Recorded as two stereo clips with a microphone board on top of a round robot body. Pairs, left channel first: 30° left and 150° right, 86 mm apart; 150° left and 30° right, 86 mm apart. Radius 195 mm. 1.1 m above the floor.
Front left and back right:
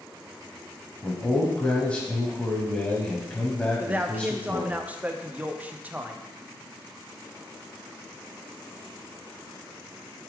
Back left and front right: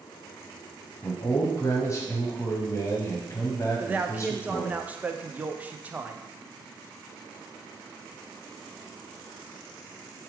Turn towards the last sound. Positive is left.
turn(degrees=-90)